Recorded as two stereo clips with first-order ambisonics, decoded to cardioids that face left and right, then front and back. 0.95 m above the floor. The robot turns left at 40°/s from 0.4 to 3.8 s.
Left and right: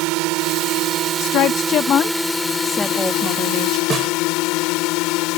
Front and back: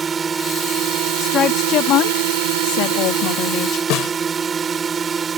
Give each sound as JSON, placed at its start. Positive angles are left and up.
{"t": 0.0, "sound": "a drone", "azimuth_deg": -110}
{"t": 1.2, "sound": "a woman speaking", "azimuth_deg": 65}
{"t": 3.9, "sound": "a snare drum", "azimuth_deg": -25}